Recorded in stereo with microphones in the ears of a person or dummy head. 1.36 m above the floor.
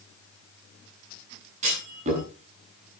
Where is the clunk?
35° right (ahead or behind), 9 m.